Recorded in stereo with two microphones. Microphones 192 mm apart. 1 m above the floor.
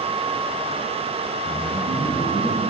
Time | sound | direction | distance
1.4 | a man speaking | 20° left (ahead or behind) | 5 m